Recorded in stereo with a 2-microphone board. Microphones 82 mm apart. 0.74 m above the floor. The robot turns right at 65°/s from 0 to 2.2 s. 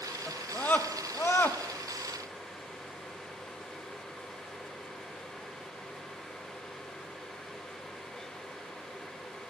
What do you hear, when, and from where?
0.3 s a scream: 10° left (ahead or behind), 0.9 m; by 1.6 s 20° left (ahead or behind), 0.9 m